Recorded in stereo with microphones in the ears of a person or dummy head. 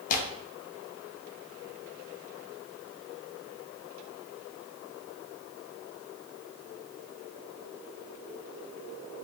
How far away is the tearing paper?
About 0.5 m.